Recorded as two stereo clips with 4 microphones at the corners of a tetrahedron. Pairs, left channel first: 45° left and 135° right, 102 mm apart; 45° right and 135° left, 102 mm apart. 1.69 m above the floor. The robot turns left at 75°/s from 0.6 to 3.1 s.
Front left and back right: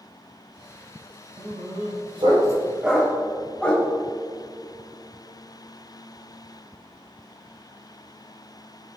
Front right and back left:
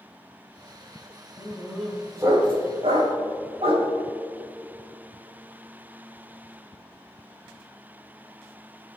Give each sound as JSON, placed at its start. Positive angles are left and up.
{"t": 1.4, "sound": "a dog barking", "azimuth_deg": -105, "distance_m": 4.0}